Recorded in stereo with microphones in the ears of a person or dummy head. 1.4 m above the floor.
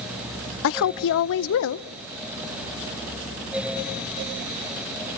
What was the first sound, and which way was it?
A woman speaking, 65° left (ahead or behind).